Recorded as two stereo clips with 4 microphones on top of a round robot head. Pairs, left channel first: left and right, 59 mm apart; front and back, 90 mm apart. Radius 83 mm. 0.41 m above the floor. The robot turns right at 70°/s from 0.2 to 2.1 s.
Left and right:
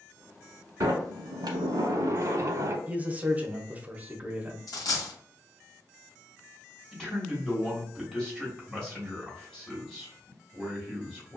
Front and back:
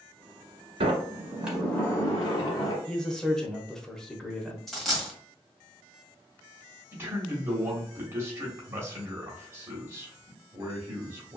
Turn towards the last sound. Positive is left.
turn(degrees=170)